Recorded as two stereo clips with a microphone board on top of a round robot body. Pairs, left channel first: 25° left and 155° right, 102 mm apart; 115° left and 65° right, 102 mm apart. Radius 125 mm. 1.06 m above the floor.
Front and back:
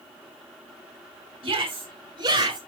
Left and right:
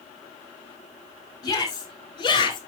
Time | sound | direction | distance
1.4 | a shout | 165° left | 5.5 m